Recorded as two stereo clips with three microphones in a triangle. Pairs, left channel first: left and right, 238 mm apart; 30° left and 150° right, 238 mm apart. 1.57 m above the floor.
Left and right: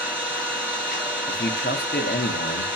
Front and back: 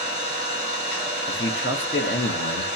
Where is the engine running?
5° right, 2.5 m.